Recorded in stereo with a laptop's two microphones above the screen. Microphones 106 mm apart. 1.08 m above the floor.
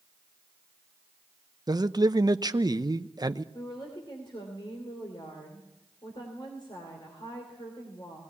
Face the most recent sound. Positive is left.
turn(degrees=50)  # may be behind; listen again after turning